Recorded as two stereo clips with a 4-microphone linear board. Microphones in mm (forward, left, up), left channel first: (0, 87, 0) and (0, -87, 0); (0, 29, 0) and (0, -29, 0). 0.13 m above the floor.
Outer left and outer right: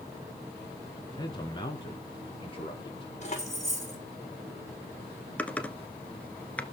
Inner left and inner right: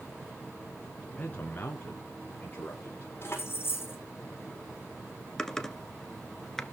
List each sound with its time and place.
1.2 s a man speaking: 25° left (ahead or behind), 1.9 m; by 3.1 s 30° left (ahead or behind), 4 m
3.2 s keys jangling: 40° left (ahead or behind), 5.5 m
5.4 s typing on a keyboard: 10° left (ahead or behind), 1.2 m